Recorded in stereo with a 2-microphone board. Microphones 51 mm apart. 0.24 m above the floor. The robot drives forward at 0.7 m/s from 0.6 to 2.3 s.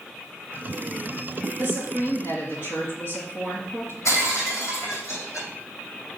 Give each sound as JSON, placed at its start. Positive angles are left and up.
{"t": 1.6, "sound": "a woman speaking", "side_deg": 65, "distance_m": 3.0}
{"t": 4.0, "sound": "breaking glass", "side_deg": 85, "distance_m": 3.0}